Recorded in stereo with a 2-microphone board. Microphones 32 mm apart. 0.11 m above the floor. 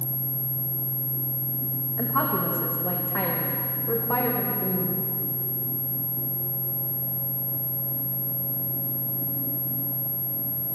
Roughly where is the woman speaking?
Left.